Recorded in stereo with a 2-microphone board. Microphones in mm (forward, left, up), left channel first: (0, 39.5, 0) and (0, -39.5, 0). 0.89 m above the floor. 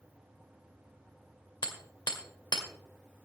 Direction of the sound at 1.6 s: 70° left (ahead or behind).